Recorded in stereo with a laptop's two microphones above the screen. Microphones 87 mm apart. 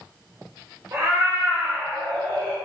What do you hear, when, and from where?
0.9 s a cat meowing: 35° right (ahead or behind), 0.8 m; by 2.5 s 25° left (ahead or behind), 0.8 m